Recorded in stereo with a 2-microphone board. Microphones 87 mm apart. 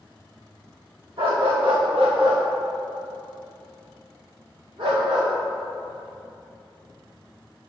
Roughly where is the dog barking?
Right.